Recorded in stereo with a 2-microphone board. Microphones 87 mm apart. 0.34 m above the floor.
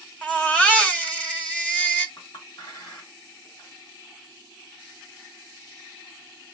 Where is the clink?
55° left (ahead or behind), 1.5 m.